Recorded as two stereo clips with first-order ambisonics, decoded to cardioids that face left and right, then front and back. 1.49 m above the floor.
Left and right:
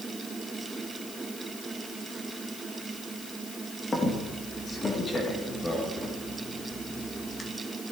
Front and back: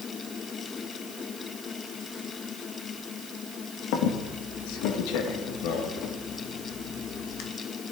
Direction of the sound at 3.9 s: 15° left.